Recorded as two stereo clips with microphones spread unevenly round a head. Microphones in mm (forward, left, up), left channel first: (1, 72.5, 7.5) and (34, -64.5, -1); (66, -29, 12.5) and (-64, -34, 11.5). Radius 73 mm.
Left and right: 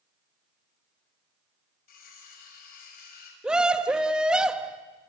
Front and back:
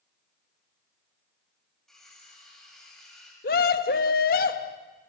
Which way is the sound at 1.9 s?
90° left.